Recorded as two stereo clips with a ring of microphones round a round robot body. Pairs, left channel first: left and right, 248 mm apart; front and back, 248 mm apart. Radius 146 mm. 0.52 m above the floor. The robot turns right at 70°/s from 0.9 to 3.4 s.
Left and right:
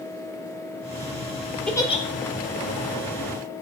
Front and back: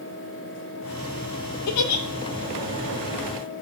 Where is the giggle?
5° left, 0.6 m; by 2.0 s 30° left, 0.6 m.